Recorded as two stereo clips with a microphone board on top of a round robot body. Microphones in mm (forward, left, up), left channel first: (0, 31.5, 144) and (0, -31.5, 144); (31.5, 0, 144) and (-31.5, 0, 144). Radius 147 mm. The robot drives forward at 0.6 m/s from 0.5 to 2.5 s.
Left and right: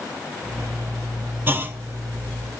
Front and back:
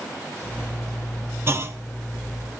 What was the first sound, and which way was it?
A clunk, 140° right.